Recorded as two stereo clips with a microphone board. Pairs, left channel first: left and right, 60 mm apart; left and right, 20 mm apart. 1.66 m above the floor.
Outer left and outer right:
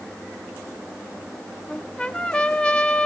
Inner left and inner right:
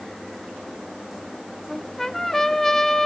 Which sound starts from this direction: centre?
A trumpet, at 1.7 s.